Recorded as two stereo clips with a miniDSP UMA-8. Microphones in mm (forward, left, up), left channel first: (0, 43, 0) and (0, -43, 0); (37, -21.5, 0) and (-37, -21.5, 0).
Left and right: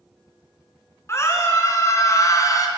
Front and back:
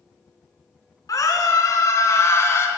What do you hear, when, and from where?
1.1 s a scream: 35° left, 3 m; by 2.7 s 50° left, 2.5 m